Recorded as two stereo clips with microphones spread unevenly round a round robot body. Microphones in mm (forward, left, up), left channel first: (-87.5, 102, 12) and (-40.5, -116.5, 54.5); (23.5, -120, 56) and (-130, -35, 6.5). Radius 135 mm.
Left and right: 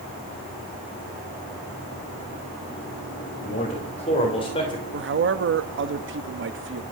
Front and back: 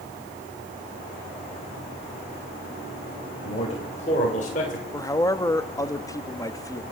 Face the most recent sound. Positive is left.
turn(degrees=-110)